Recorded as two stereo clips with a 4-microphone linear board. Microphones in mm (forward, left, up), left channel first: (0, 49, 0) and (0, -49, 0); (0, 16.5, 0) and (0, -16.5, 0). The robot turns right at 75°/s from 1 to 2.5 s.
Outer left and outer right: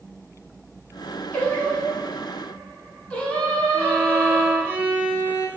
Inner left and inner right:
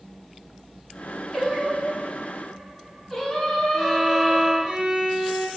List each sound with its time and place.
1.3 s singing: 15° left (ahead or behind), 1.4 m
3.7 s a violin: 25° right (ahead or behind), 1.3 m